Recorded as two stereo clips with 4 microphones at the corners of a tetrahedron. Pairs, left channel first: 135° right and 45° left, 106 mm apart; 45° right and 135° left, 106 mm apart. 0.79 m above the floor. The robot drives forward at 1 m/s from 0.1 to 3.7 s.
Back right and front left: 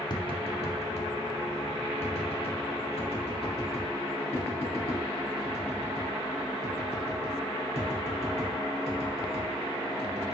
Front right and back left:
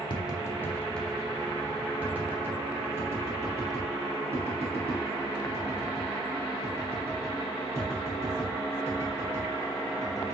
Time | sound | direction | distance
0.1 | tapping | 85° right | 1.1 m